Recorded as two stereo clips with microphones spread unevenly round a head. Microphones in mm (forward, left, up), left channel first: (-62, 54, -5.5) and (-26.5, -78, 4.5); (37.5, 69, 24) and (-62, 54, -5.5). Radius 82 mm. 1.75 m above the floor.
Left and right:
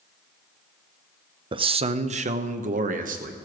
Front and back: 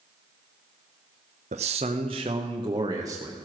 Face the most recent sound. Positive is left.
turn(degrees=-100)